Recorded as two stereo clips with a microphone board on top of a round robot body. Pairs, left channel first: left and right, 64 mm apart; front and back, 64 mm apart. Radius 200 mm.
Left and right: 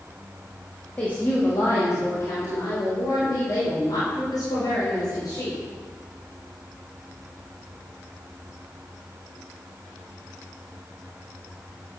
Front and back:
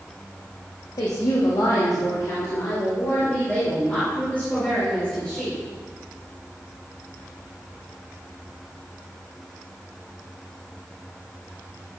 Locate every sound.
1.0 s a woman speaking: 20° left, 2.5 m; by 5.6 s 75° left, 7 m